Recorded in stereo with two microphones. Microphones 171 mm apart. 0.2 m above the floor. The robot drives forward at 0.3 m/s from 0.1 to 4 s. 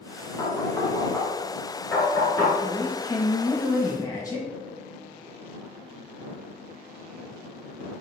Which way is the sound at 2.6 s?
20° left (ahead or behind).